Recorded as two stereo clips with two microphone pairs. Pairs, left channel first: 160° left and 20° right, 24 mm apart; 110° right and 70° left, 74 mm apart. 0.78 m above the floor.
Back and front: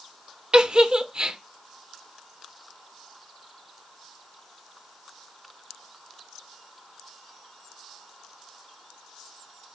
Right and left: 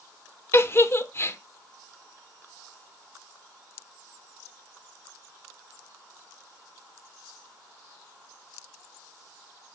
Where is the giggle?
60° right, 0.8 m.